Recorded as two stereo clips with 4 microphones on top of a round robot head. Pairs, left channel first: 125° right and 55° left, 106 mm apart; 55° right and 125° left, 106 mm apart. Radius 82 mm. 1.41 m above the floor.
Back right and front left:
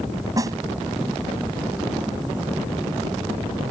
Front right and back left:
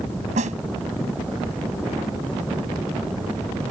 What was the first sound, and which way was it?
A snare drum, 115° left.